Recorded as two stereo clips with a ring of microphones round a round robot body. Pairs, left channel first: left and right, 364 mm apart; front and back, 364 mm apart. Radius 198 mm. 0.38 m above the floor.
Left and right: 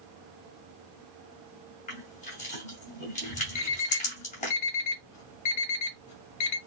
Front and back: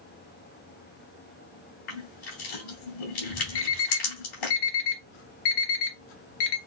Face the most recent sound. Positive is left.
turn(degrees=35)